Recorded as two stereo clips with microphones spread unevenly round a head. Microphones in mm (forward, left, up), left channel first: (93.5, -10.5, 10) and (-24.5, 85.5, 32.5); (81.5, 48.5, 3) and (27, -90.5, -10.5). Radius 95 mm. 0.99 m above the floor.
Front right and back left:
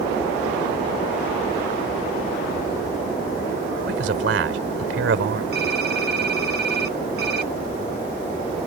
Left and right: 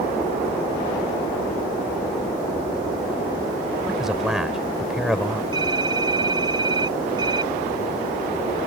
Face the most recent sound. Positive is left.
turn(degrees=180)